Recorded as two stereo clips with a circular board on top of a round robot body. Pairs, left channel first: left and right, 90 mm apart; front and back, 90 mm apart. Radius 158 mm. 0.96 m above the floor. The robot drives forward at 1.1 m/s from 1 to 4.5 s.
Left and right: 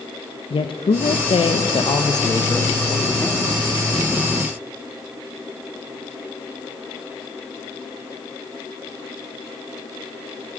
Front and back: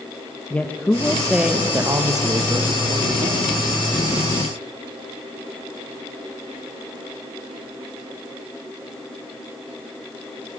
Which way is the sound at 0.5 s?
75° left.